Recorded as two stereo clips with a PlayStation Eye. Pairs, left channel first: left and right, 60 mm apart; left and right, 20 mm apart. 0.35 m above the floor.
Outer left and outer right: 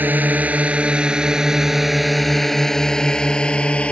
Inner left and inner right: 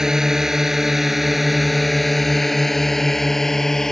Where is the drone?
30° right (ahead or behind); by 3.9 s 20° left (ahead or behind).